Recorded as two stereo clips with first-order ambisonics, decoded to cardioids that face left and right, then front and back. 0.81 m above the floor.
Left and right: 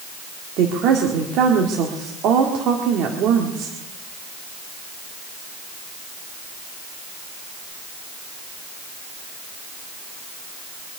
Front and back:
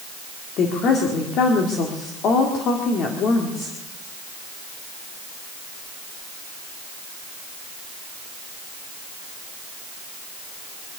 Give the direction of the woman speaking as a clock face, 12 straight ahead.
2 o'clock.